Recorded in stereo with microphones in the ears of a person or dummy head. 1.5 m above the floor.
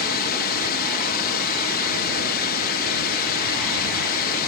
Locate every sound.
0.0 s a drone: 50° left (ahead or behind)